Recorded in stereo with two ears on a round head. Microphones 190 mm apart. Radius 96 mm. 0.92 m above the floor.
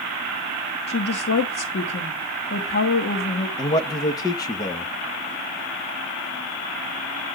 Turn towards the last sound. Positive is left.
turn(degrees=15)  # may be behind; listen again after turning